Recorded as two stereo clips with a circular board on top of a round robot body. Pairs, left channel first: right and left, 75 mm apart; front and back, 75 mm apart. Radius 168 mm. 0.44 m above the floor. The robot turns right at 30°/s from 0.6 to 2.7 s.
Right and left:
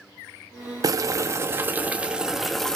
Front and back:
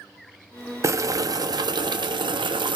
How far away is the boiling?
About 0.6 m.